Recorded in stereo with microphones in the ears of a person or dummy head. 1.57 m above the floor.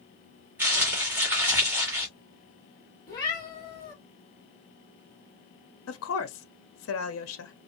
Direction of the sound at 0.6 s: 15° right (ahead or behind).